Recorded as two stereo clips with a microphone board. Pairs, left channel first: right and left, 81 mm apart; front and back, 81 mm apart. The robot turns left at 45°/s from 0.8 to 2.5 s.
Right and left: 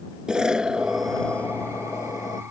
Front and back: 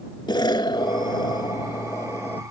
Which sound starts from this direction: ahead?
An explosion, at 0.3 s.